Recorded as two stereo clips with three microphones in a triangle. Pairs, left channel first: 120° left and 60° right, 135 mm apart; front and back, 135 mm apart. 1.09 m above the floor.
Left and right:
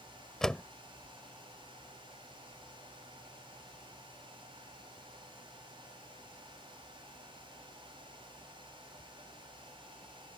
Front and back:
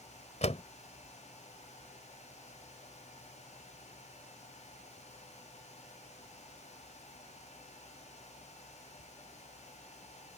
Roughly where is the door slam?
Ahead left.